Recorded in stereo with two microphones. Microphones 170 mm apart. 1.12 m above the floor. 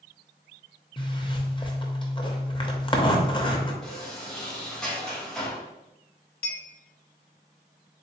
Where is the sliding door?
5° left (ahead or behind), 1.5 m.